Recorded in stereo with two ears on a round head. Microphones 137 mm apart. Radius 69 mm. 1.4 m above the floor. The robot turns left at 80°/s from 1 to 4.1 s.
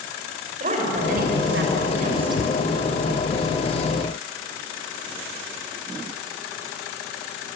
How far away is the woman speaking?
About 6.5 m.